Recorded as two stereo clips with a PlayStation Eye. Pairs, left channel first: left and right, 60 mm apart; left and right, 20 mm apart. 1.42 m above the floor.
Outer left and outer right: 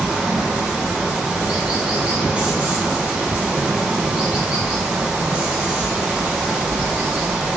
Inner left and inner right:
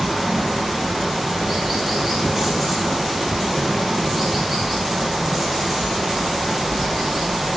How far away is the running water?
About 2 m.